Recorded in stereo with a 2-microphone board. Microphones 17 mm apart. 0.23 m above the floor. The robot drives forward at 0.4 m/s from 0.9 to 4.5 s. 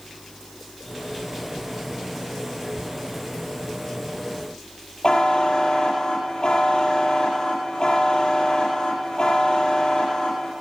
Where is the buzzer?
55° left (ahead or behind), 5.5 m.